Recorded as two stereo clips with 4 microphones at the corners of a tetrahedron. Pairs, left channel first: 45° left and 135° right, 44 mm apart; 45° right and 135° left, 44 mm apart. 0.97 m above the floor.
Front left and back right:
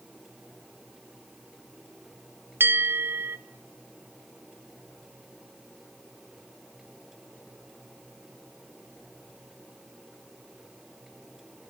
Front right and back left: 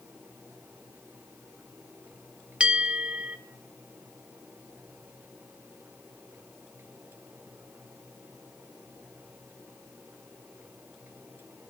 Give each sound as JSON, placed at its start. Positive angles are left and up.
{"t": 2.6, "sound": "a bell", "azimuth_deg": -160, "distance_m": 0.9}